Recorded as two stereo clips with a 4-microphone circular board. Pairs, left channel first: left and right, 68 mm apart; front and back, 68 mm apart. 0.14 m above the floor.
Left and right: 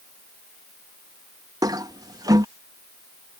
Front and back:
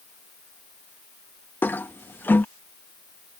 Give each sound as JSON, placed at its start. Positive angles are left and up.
{"t": 1.6, "sound": "a toilet flushing", "azimuth_deg": -60}